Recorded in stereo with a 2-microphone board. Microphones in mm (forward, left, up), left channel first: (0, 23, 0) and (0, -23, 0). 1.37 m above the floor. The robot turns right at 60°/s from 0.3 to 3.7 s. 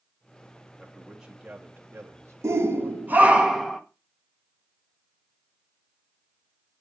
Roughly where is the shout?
Right.